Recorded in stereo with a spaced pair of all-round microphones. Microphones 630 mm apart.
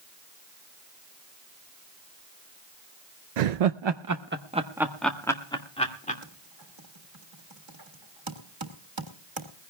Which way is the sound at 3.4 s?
80° right.